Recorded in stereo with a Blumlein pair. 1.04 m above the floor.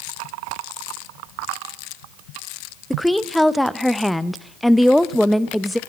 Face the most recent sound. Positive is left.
turn(degrees=0)